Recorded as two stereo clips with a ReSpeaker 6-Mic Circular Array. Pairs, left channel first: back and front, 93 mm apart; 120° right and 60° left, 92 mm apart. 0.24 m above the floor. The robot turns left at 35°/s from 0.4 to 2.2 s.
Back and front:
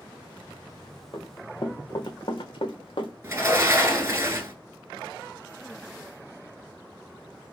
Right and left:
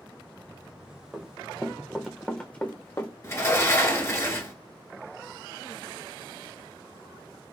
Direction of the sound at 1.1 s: 145° left.